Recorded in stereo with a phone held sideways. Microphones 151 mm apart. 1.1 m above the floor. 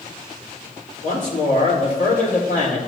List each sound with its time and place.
1.0 s a man speaking: 80° left, 3.5 m